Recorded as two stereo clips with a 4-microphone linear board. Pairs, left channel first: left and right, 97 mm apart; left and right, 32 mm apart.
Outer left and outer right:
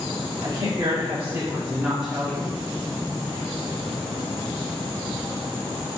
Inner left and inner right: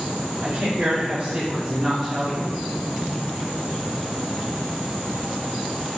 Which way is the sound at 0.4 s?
70° right (ahead or behind).